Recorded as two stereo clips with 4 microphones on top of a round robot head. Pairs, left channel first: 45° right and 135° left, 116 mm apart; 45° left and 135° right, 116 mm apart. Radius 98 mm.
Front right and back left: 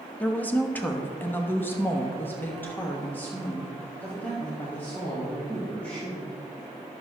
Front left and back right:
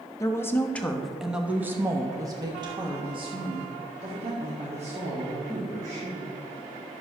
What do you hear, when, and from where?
0.2 s a woman speaking: 20° left, 1.1 m; by 6.3 s 125° right, 3 m